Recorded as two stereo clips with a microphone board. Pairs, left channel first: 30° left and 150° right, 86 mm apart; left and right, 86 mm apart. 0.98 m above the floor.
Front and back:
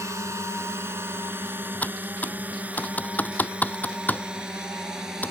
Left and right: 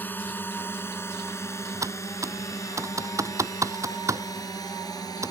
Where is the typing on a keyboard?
40° right.